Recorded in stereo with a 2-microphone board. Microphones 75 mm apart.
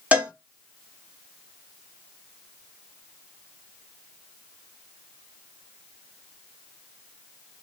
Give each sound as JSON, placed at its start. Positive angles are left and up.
{"t": 0.1, "sound": "a cowbell", "side_deg": -20, "distance_m": 1.2}